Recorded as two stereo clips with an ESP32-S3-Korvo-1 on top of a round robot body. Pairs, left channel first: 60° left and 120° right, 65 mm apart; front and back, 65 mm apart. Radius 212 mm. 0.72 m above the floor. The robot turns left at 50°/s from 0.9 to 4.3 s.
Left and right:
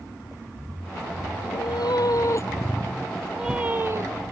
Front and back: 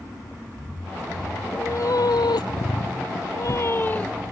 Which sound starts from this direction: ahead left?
A cat meowing, at 1.4 s.